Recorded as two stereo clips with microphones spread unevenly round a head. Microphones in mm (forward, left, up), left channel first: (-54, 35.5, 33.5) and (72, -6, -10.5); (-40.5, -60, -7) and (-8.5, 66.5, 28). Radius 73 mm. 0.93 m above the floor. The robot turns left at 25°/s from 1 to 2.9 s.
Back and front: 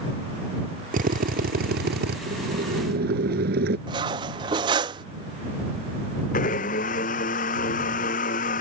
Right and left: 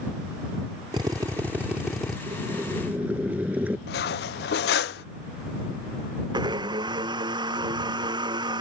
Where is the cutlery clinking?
80° right.